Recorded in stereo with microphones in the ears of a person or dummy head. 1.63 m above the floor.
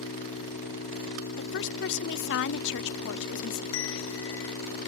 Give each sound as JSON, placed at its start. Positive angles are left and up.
{"t": 0.0, "sound": "an engine running", "side_deg": 50}
{"t": 1.4, "sound": "a woman speaking", "side_deg": 65}
{"t": 3.7, "sound": "a bell", "side_deg": 60}